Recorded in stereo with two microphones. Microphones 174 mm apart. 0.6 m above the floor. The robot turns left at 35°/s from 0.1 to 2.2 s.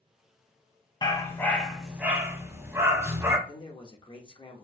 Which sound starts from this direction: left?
A man speaking, at 3.5 s.